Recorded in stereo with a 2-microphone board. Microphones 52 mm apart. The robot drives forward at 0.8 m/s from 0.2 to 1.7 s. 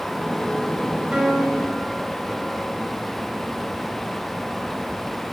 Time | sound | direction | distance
1.1 | a piano | 20° right (ahead or behind) | 2.5 m